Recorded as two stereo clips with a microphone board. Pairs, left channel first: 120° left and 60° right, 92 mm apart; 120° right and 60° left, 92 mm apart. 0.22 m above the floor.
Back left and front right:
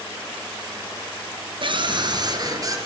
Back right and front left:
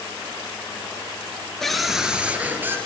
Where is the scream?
35° right, 3 m; by 2.8 s 5° right, 4 m.